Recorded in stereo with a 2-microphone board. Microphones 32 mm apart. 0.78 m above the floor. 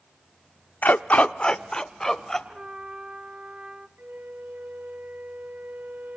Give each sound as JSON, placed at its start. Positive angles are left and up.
{"t": 0.8, "sound": "a dog barking", "side_deg": 70, "distance_m": 0.5}
{"t": 2.5, "sound": "a trumpet", "side_deg": -40, "distance_m": 1.1}
{"t": 4.0, "sound": "a flute", "side_deg": -75, "distance_m": 0.8}